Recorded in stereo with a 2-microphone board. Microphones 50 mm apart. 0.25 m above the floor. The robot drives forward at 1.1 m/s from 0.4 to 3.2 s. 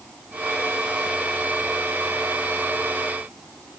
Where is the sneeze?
No sneeze in this recording.